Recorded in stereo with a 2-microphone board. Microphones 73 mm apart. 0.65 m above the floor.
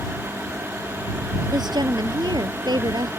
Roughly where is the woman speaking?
Right.